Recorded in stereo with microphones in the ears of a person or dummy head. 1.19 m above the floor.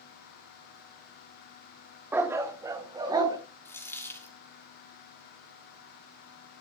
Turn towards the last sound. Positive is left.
turn(degrees=15)  # may be behind; listen again after turning